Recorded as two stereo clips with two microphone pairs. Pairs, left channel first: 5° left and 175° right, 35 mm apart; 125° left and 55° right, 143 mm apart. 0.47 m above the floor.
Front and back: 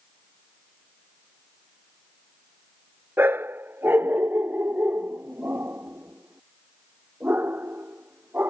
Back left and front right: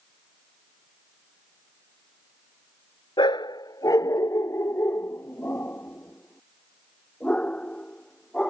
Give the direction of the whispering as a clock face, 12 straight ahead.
I don't hear whispering.